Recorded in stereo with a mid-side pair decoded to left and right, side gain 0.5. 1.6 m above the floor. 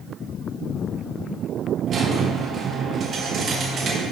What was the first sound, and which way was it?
A squeak, 45° right.